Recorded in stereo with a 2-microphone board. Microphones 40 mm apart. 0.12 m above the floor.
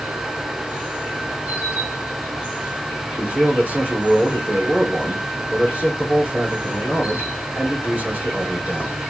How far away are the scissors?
I don't hear scissors.